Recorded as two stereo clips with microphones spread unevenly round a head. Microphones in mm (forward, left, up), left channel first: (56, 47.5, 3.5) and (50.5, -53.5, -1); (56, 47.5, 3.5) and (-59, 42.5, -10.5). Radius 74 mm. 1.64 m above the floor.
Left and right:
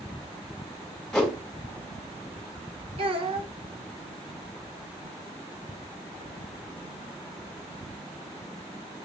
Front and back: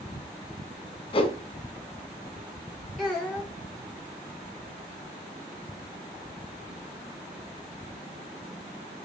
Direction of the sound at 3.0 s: 85° right.